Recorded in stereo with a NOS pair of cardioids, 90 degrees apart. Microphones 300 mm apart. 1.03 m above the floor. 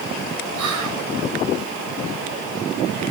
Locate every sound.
0.6 s whispering: 70° right, 5 m